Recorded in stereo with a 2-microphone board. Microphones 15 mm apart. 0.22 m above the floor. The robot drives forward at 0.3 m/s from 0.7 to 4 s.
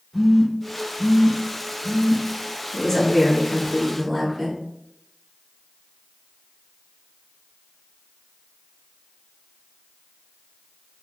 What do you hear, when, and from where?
0.1 s a phone buzzing: centre (ahead or behind), 1.1 m
2.7 s a woman speaking: 20° left (ahead or behind), 1.4 m; by 4.6 s 15° left (ahead or behind), 1.6 m